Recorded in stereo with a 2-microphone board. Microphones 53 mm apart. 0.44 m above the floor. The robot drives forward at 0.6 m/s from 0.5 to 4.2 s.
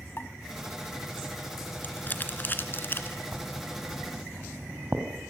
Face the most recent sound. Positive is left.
turn(degrees=-40)  # may be behind; listen again after turning